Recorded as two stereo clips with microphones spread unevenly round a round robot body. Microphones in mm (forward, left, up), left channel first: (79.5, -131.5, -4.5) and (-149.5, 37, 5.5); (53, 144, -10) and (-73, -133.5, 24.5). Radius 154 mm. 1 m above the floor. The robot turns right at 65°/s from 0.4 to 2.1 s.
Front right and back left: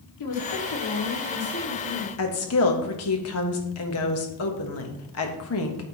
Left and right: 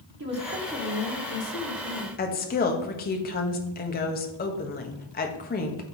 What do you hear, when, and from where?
0.2 s a woman speaking: 55° right, 2 m; by 2.1 s 55° left, 2 m
2.2 s a woman speaking: 5° left, 1.1 m